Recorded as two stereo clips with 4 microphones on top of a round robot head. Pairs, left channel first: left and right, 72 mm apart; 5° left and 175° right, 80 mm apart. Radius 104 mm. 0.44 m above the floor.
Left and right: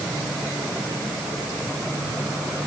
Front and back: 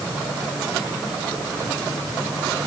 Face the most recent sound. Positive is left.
No sound to turn to.